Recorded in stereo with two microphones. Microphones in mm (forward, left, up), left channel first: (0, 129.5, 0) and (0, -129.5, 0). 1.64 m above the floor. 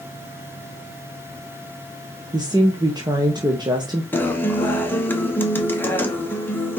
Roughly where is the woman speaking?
Centre.